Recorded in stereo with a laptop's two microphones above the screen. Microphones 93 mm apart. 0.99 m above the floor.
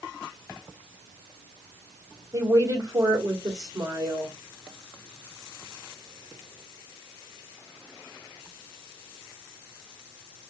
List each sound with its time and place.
2.3 s a woman speaking: 40° right (ahead or behind), 2 m